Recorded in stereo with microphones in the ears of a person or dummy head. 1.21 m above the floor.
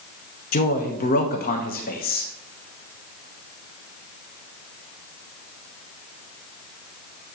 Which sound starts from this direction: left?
A man speaking, at 0.5 s.